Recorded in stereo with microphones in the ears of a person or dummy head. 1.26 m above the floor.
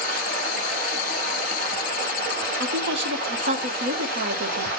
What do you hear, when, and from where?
0.0 s running water: 50° right (ahead or behind), 0.8 m
2.6 s a woman speaking: 60° right (ahead or behind), 0.8 m